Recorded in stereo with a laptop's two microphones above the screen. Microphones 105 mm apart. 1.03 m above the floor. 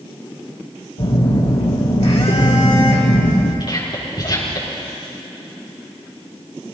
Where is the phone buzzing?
80° left, 2.5 m.